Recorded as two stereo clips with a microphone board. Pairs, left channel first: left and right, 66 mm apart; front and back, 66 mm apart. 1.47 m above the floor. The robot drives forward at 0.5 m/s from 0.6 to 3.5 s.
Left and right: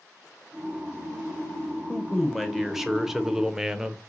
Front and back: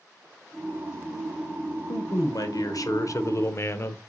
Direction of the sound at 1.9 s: 5° right.